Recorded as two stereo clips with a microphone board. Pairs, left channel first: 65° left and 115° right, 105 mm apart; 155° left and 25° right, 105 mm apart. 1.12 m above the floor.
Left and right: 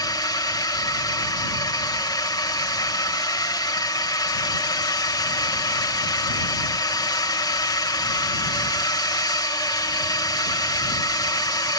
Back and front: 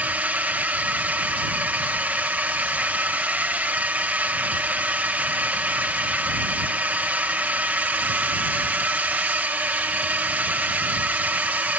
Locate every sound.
0.0 s a drone: 45° left